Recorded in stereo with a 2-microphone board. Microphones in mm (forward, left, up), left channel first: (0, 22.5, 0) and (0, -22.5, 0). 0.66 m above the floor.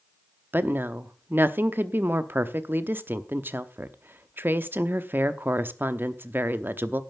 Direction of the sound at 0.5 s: 50° right (ahead or behind).